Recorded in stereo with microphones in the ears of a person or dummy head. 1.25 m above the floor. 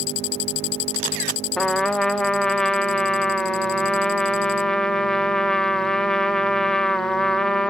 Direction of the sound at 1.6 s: 5° left (ahead or behind).